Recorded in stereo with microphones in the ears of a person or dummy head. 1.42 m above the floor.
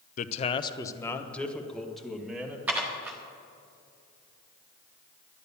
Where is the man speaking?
45° left (ahead or behind), 0.6 m; by 2.6 s 10° right (ahead or behind), 1.9 m.